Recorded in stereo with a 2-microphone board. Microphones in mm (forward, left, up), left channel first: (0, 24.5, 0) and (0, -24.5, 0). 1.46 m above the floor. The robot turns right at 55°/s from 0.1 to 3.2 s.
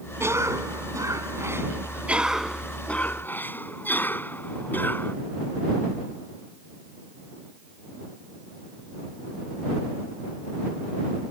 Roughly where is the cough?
Behind right.